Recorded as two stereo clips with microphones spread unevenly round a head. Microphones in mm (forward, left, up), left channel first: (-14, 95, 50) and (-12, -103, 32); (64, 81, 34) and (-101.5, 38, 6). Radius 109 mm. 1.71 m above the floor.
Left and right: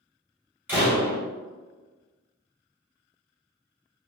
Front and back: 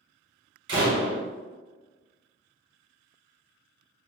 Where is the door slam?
170° right, 1.5 m.